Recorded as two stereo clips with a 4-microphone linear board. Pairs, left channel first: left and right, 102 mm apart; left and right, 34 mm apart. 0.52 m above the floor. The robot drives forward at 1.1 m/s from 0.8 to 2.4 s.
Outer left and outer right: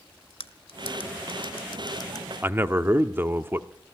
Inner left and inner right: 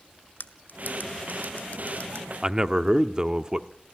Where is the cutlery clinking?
70° left (ahead or behind), 1.5 m; by 2.3 s 45° left (ahead or behind), 2.0 m.